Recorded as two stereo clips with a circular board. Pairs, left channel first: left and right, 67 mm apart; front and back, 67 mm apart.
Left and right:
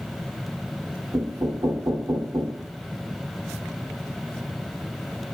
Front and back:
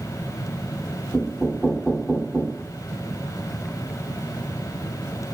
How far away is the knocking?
About 4.5 m.